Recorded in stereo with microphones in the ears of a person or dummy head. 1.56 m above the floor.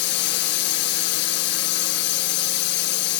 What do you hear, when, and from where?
0.0 s a drone: 60° left (ahead or behind)